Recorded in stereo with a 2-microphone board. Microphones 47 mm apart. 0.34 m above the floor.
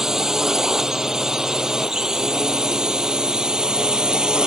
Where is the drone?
10° right (ahead or behind); by 4.5 s 15° right (ahead or behind).